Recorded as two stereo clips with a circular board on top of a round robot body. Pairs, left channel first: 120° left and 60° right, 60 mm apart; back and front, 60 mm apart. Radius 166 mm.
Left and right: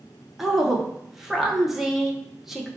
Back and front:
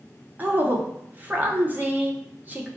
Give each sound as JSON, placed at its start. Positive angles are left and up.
{"t": 0.4, "sound": "a woman speaking", "azimuth_deg": 20, "distance_m": 0.9}